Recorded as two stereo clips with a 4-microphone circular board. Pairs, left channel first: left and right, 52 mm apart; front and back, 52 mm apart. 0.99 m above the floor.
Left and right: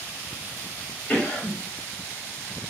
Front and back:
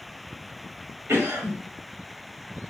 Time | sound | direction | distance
1.1 | a cough | 150° left | 1.5 m